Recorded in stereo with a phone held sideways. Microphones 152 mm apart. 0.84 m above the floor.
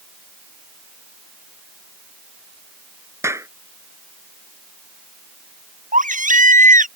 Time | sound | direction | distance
3.2 | a clap | 20° right (ahead or behind) | ?
5.9 | a baby crying | 65° right (ahead or behind) | ?